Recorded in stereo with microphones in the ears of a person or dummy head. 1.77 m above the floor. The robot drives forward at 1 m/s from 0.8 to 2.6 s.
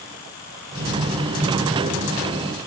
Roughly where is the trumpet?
No trumpet in this recording.